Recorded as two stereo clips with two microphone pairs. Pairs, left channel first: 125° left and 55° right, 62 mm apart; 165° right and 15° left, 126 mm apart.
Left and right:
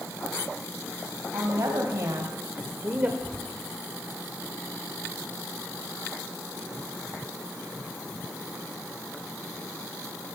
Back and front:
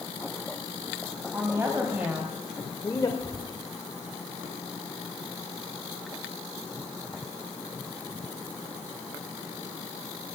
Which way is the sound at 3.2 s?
Straight behind.